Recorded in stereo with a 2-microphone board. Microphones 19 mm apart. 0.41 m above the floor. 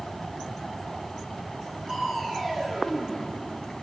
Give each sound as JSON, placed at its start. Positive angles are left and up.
{"t": 1.9, "sound": "crushing", "side_deg": -20, "distance_m": 8.0}